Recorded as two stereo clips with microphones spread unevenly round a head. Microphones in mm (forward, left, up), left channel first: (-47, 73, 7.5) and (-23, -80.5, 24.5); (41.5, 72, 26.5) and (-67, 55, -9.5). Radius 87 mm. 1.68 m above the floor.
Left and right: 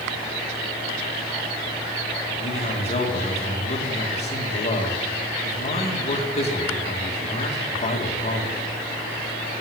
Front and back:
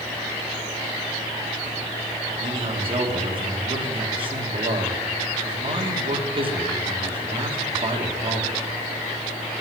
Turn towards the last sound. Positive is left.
turn(degrees=150)